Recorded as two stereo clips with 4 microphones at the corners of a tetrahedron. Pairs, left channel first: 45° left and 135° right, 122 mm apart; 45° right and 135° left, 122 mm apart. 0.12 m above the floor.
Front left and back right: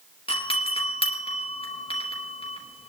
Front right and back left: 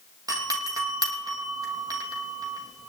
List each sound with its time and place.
0.3 s a doorbell: 75° left, 3.5 m